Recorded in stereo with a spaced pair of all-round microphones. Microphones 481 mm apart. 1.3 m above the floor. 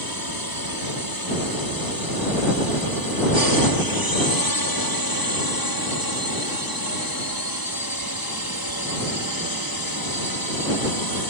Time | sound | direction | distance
0.0 | a drone | 45° left (ahead or behind) | ?